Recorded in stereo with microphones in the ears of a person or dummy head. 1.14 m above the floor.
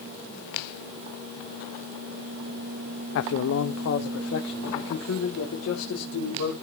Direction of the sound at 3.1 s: 75° left (ahead or behind).